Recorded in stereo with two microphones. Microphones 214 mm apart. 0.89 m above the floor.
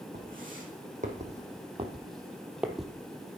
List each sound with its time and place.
0.1 s footsteps: 45° right (ahead or behind), 3 m; by 2.9 s 5° left (ahead or behind), 1.1 m